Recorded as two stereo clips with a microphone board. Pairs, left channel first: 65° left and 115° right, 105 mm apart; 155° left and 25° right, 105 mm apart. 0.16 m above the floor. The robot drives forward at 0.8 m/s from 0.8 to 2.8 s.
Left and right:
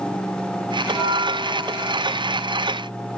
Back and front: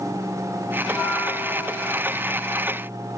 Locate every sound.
0.9 s a bell: 125° right, 1.8 m; by 2.2 s 155° right, 2.5 m